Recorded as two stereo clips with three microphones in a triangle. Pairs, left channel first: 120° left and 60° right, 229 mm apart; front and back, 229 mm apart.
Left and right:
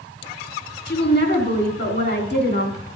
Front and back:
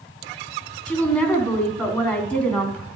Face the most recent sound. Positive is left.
turn(degrees=85)